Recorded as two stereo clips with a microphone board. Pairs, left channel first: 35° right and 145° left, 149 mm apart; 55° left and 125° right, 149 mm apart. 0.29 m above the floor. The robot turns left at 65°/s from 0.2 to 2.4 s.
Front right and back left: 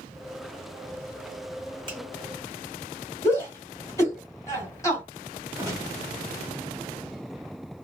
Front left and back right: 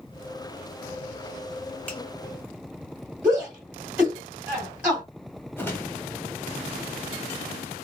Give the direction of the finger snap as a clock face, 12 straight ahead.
8 o'clock.